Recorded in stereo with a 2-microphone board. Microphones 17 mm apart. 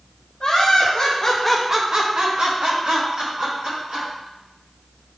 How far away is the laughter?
About 1.3 m.